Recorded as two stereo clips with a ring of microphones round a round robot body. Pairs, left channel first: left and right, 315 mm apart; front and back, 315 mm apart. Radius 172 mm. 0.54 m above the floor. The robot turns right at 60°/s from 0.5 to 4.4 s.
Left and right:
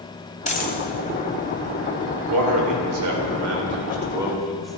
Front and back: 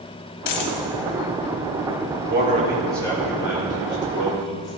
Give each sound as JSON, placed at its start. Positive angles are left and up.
{"t": 0.5, "sound": "a dropped coin", "azimuth_deg": 20, "distance_m": 1.3}
{"t": 2.3, "sound": "a man speaking", "azimuth_deg": -125, "distance_m": 2.5}